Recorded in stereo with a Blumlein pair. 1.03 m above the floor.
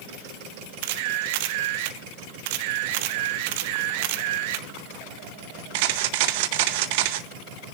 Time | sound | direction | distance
0.8 | a camera shutter | 50° right | 0.9 m